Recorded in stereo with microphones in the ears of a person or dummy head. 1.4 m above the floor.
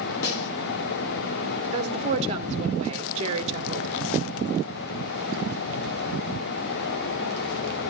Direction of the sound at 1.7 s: 35° right (ahead or behind).